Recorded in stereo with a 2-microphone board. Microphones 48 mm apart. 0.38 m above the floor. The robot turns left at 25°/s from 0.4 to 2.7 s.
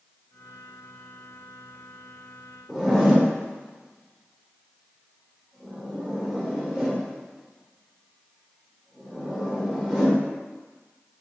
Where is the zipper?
Centre (ahead or behind), 0.9 m.